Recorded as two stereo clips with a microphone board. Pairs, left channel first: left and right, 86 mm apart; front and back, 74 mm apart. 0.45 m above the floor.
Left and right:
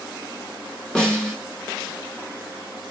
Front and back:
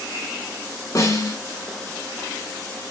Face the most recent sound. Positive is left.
turn(degrees=10)